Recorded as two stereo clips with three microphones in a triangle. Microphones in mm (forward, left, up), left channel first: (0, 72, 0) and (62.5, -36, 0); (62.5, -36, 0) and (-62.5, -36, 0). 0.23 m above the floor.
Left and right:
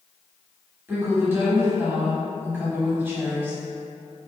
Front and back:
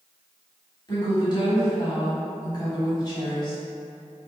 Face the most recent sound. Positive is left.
turn(degrees=0)